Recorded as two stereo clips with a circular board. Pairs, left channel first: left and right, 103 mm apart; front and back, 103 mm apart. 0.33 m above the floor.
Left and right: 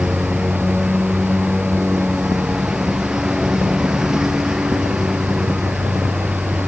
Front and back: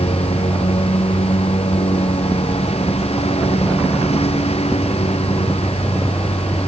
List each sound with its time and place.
0.0 s a lawn mower: 5° right